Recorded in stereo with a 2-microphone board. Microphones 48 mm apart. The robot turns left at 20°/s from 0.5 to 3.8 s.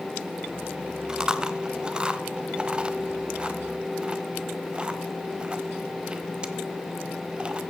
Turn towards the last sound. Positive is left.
turn(degrees=-20)  # may be behind; listen again after turning